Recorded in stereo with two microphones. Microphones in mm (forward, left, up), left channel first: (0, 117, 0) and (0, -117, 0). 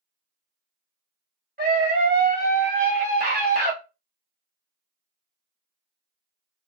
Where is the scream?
40° right (ahead or behind), 1.3 m.